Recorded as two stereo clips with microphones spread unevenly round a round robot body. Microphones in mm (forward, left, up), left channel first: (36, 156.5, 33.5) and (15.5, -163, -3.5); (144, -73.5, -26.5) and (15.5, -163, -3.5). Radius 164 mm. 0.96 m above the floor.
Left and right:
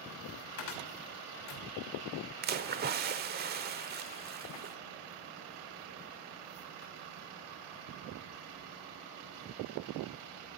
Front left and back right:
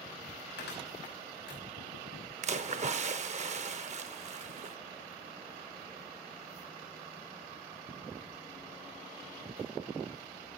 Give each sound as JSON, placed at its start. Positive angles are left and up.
{"t": 0.6, "sound": "a cupboard door", "azimuth_deg": 60, "distance_m": 2.5}
{"t": 2.4, "sound": "a splash", "azimuth_deg": -155, "distance_m": 0.9}